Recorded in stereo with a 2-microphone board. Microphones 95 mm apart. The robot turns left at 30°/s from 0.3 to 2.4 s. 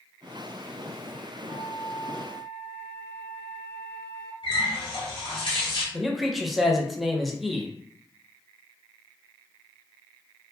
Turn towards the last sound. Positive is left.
turn(degrees=0)  # may be behind; listen again after turning